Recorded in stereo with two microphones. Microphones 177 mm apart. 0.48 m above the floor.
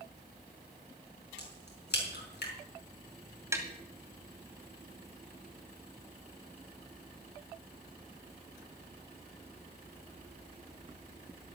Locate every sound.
1.4 s a crack: 75° left (ahead or behind), 5 m
3.5 s tapping: 15° right (ahead or behind), 2 m